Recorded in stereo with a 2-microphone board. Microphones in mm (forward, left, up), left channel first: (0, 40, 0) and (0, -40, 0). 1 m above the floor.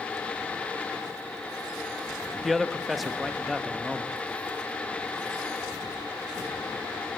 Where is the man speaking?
Centre (ahead or behind), 1.0 m.